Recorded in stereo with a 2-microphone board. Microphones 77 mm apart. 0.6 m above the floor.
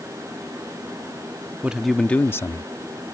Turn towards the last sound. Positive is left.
turn(degrees=60)  # may be behind; listen again after turning